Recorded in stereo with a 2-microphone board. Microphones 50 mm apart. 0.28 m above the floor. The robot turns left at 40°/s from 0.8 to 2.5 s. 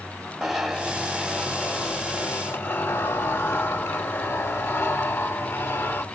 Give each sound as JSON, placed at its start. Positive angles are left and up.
{"t": 0.4, "sound": "a zipper", "azimuth_deg": -170, "distance_m": 1.1}